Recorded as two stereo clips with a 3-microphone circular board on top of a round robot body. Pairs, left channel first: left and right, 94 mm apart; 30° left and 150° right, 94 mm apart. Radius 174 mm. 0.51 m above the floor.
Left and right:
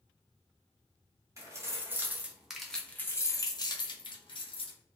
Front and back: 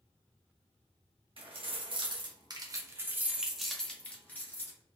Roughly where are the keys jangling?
Behind right.